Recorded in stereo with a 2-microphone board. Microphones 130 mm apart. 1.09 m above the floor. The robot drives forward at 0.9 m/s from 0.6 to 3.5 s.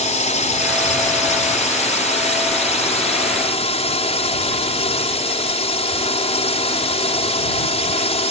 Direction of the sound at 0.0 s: 70° left (ahead or behind).